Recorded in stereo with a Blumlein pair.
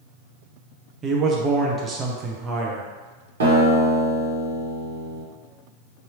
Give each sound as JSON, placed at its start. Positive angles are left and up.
{"t": 1.0, "sound": "a man speaking", "azimuth_deg": -25, "distance_m": 0.5}
{"t": 3.4, "sound": "a guitar", "azimuth_deg": -65, "distance_m": 1.1}